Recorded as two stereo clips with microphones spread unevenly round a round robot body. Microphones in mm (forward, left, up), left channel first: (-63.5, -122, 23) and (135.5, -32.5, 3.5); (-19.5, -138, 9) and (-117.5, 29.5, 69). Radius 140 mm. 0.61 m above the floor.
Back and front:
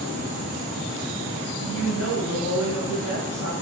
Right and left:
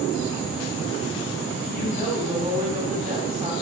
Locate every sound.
1.6 s a woman speaking: 170° right, 2 m